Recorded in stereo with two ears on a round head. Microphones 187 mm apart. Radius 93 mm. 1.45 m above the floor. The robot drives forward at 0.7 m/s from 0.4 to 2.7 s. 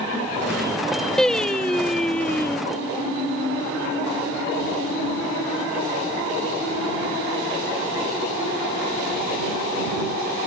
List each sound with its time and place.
1.2 s singing: 5° left (ahead or behind); by 2.6 s 10° left (ahead or behind)